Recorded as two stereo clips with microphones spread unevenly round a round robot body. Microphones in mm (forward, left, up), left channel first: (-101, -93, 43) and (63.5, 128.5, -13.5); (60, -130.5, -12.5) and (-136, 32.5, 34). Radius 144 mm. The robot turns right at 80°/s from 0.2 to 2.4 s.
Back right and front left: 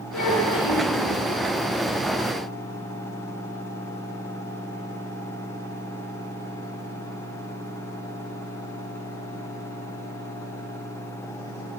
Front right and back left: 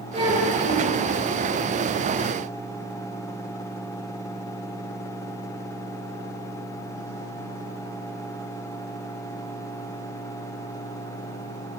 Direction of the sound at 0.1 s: 150° right.